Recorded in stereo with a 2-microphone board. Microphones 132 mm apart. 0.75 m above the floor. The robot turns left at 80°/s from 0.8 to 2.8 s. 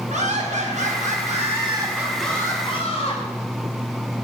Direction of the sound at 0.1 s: 70° right.